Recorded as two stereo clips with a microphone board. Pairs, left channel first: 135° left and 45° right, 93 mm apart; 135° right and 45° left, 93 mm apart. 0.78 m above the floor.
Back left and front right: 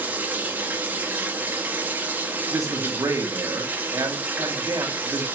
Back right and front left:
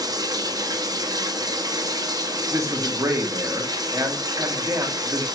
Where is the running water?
20° left, 1.1 m.